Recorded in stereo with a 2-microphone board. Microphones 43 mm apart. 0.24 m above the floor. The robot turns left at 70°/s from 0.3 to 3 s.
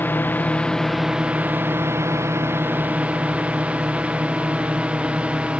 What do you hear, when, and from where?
0.0 s a drone: 45° left (ahead or behind); by 5.6 s 25° right (ahead or behind)